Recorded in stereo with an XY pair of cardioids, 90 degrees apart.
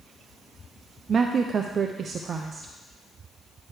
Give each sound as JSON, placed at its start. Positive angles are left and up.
{"t": 1.1, "sound": "a woman speaking", "azimuth_deg": -50, "distance_m": 0.6}